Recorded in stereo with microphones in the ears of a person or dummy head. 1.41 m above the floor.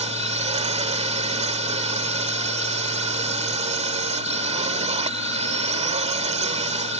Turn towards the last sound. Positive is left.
turn(degrees=-35)  # may be behind; listen again after turning